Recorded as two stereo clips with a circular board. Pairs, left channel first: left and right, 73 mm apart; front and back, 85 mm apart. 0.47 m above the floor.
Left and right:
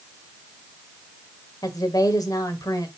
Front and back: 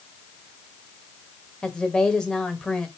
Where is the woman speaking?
80° left, 1.7 m.